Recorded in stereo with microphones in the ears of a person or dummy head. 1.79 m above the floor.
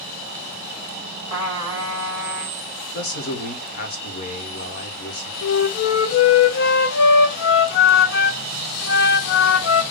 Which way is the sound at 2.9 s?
50° left (ahead or behind).